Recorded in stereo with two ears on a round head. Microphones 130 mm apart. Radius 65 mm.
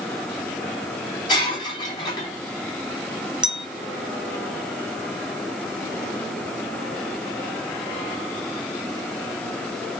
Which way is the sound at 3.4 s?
5° right (ahead or behind).